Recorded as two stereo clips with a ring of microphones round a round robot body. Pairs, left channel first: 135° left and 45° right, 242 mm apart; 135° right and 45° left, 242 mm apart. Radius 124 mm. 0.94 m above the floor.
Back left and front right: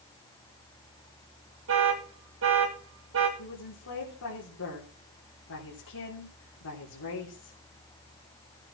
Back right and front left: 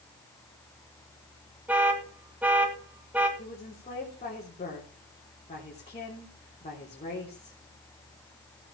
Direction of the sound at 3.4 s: 160° left.